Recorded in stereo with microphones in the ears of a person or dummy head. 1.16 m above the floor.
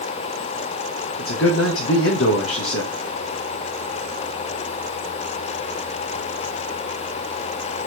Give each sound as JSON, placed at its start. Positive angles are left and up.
{"t": 1.2, "sound": "a man speaking", "side_deg": 70, "distance_m": 1.5}